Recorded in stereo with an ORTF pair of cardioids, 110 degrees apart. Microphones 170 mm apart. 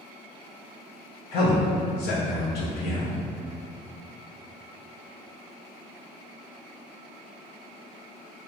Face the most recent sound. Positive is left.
turn(degrees=70)